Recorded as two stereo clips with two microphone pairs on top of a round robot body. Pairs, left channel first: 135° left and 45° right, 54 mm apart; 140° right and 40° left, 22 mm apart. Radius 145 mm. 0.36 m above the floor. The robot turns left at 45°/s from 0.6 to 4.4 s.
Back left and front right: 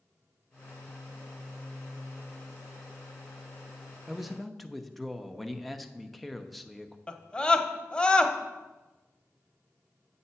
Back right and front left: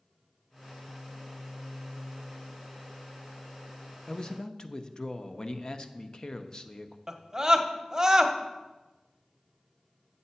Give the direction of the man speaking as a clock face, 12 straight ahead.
4 o'clock.